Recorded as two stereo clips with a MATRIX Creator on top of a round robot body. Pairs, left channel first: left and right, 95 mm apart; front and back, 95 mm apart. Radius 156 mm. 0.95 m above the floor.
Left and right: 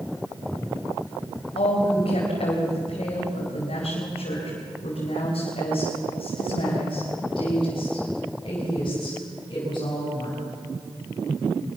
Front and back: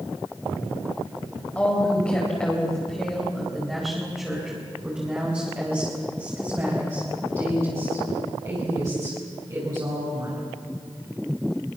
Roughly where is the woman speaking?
Left.